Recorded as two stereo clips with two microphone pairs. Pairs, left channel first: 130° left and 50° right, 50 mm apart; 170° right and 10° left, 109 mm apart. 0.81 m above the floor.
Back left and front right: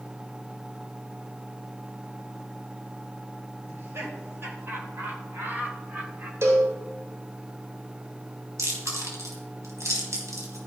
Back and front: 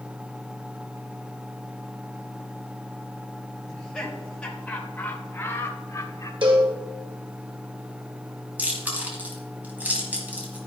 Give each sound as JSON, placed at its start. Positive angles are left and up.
{"t": 3.7, "sound": "laughter", "azimuth_deg": -80, "distance_m": 3.5}
{"t": 6.4, "sound": "a cowbell", "azimuth_deg": -25, "distance_m": 2.5}
{"t": 8.6, "sound": "chewing", "azimuth_deg": -65, "distance_m": 3.5}